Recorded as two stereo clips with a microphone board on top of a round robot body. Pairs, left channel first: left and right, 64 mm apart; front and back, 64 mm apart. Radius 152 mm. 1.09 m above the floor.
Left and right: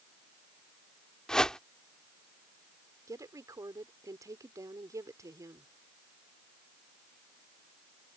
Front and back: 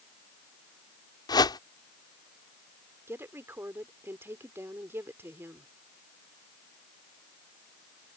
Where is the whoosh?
10° left.